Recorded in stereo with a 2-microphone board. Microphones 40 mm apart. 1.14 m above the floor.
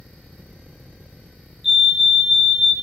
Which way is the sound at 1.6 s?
5° right (ahead or behind).